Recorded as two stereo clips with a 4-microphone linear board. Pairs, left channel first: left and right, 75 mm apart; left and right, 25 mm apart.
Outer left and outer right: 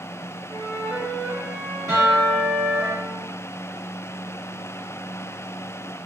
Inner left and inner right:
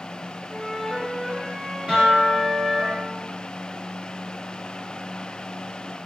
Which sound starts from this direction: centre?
A flute, at 0.5 s.